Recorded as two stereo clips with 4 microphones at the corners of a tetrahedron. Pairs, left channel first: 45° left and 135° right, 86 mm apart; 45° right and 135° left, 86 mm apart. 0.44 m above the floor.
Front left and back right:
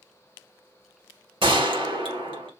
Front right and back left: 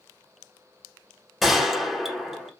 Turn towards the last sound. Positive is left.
turn(degrees=-135)